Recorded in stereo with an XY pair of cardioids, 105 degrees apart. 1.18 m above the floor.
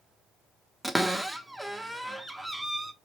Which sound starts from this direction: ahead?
A cupboard door, at 0.8 s.